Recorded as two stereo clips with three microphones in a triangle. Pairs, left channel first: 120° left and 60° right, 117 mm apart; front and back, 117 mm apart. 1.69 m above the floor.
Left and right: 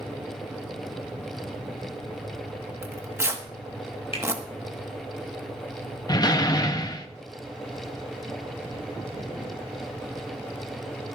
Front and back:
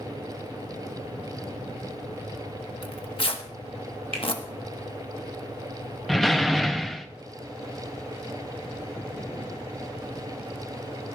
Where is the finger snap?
155° left, 3 m.